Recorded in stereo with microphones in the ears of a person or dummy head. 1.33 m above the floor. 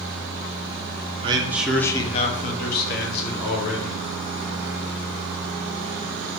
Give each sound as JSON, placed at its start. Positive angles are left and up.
{"t": 1.2, "sound": "a man speaking", "side_deg": -30, "distance_m": 0.6}